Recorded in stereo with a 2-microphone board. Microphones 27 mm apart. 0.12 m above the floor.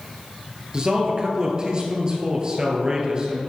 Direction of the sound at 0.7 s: 35° right (ahead or behind).